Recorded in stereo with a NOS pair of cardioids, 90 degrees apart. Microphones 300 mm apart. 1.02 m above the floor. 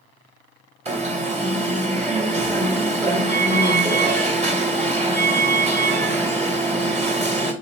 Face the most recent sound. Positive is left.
turn(degrees=-20)